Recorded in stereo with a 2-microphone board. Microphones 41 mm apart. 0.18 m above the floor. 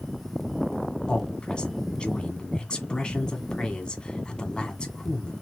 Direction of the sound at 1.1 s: 25° left (ahead or behind).